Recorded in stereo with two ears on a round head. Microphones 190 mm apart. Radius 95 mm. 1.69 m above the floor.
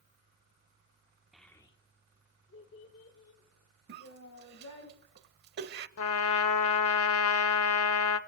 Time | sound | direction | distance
1.3 | a child speaking | centre (ahead or behind) | 0.9 m
3.9 | a cough | 45° right (ahead or behind) | 0.8 m
6.0 | a trumpet | 70° left (ahead or behind) | 0.8 m